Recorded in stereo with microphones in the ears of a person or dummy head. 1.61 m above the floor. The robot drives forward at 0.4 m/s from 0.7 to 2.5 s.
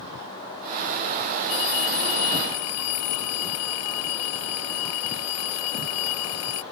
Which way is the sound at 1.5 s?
85° left.